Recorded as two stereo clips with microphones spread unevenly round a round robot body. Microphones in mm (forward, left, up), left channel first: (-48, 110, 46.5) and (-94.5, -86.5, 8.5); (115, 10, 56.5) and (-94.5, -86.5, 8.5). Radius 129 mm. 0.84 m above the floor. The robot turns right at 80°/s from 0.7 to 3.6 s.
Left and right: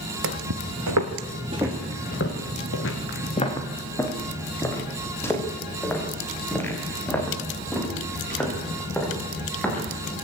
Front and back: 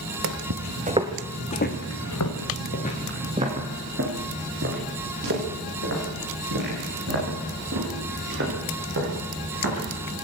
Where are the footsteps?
120° right, 1.7 m; by 9.8 s 160° left, 10.5 m.